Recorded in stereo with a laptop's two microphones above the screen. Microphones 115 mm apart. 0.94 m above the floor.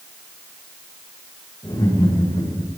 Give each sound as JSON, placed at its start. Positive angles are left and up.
{"t": 1.6, "sound": "laughter", "side_deg": 40, "distance_m": 6.5}